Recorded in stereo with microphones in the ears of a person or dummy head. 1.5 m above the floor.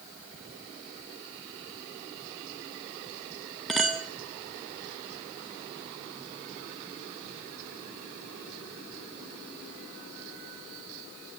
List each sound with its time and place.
3.7 s a clink: centre (ahead or behind), 0.8 m